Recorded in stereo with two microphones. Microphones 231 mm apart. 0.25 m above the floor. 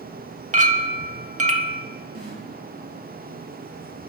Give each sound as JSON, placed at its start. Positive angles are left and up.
{"t": 0.5, "sound": "a clink", "side_deg": -30, "distance_m": 0.6}
{"t": 2.1, "sound": "a snare drum", "side_deg": -70, "distance_m": 4.5}